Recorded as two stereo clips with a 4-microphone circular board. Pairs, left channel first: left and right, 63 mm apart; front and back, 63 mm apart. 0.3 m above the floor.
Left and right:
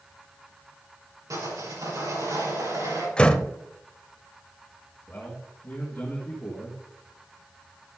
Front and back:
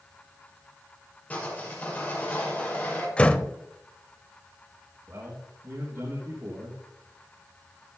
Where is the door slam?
40° left, 0.8 m.